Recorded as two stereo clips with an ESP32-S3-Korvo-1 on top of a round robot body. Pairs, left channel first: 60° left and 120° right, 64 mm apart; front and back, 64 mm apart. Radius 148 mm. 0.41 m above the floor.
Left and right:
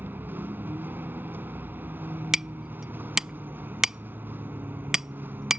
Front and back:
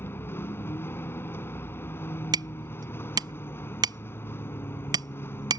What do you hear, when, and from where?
0.0 s a vehicle: 55° right
2.3 s hammering: 160° left